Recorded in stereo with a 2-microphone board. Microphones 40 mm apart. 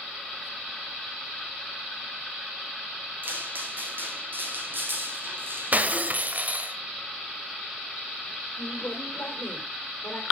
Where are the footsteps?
50° right (ahead or behind), 3 m.